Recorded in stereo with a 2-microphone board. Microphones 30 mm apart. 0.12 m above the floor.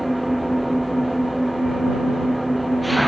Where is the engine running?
Centre (ahead or behind).